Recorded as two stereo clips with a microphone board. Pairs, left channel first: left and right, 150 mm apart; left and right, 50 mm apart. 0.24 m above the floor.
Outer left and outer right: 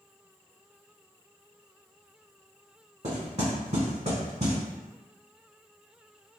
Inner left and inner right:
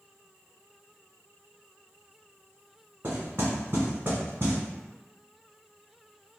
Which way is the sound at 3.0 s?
55° right (ahead or behind).